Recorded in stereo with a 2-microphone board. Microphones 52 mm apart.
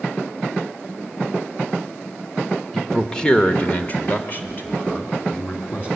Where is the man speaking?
5° left (ahead or behind), 1.2 m; by 5.9 s 40° left (ahead or behind), 3 m.